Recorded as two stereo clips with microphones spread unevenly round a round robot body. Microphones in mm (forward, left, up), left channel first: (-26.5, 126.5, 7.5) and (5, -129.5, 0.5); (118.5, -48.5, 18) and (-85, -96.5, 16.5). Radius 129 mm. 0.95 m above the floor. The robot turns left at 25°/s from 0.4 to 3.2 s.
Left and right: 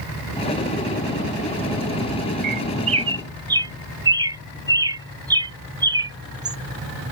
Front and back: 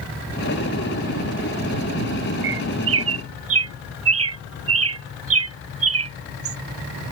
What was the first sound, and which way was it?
A bird, 140° right.